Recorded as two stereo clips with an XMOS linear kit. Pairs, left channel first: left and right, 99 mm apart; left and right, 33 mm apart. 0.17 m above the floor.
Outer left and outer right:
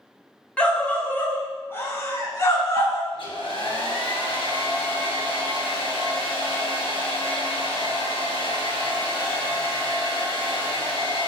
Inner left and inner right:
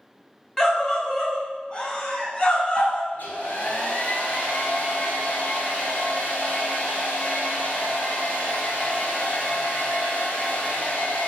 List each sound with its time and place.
0.6 s a scream: 10° left (ahead or behind), 1.1 m; by 3.0 s 35° left (ahead or behind), 1.6 m
3.1 s a hair dryer: 65° left (ahead or behind), 2.5 m